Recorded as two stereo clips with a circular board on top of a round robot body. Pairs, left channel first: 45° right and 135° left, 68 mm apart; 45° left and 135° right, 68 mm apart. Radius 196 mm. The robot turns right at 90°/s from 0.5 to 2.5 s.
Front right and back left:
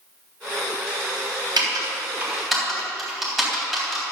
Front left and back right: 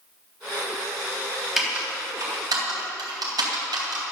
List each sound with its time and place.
1.6 s typing on a keyboard: 135° left, 3.5 m; by 4.0 s 140° right, 3.5 m